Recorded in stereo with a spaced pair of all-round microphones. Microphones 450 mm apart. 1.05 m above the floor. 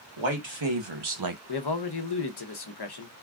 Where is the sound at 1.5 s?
55° left (ahead or behind), 0.8 m.